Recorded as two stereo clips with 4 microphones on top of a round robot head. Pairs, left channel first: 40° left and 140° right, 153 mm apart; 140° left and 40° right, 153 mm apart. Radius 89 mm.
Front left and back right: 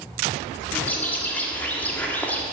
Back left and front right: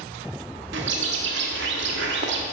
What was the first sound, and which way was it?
A bird, 40° right.